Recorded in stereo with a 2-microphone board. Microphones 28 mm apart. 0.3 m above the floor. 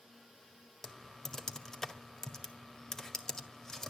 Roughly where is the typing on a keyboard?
Centre.